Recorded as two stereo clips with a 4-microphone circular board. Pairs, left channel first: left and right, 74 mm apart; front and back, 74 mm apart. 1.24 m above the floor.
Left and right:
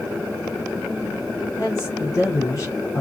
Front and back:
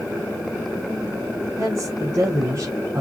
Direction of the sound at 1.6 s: 135° left.